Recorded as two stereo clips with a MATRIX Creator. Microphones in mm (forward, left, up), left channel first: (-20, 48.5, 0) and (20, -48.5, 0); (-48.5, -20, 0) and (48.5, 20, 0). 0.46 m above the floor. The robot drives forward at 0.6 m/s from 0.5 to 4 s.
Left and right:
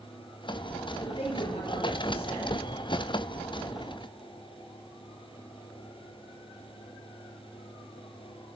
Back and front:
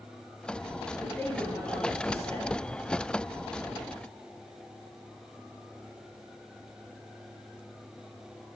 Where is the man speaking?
130° left, 8.5 m; by 2.6 s 135° left, 9 m.